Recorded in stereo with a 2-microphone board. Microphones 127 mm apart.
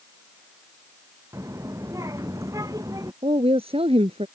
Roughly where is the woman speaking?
Right.